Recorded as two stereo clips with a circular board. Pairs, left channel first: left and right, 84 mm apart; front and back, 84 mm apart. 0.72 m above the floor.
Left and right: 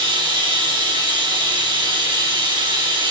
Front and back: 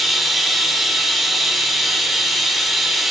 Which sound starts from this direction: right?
Running water, at 0.0 s.